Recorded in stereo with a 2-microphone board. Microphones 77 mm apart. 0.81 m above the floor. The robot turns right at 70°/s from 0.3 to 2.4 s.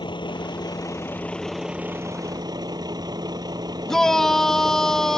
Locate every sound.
0.0 s a vehicle: 95° left; by 5.2 s 120° right
3.9 s a shout: 5° left (ahead or behind)